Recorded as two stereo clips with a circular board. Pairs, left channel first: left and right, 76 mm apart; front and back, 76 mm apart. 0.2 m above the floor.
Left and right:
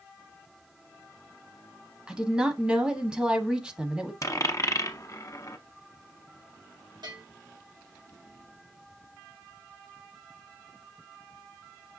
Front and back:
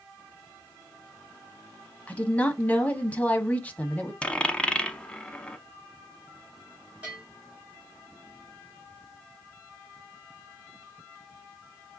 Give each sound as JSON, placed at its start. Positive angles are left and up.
{"t": 2.1, "sound": "a woman speaking", "azimuth_deg": -30, "distance_m": 1.1}
{"t": 4.2, "sound": "a dropped coin", "azimuth_deg": 70, "distance_m": 0.7}
{"t": 7.0, "sound": "a bell", "azimuth_deg": -105, "distance_m": 3.0}